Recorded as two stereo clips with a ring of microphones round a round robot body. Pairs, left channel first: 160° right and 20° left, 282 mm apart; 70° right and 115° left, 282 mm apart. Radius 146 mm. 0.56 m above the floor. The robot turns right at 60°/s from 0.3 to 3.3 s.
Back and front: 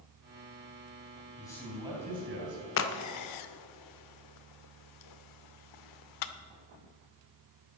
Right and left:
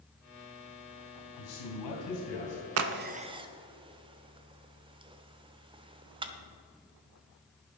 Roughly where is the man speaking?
Right.